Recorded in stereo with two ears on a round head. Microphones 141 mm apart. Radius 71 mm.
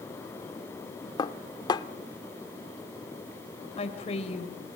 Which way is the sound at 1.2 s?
25° left (ahead or behind).